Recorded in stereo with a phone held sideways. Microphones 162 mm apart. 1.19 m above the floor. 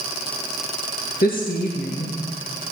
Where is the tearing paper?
No tearing paper in this recording.